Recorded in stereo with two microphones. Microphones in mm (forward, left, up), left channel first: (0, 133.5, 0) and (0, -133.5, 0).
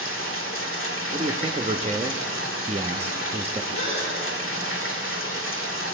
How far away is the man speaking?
About 0.6 m.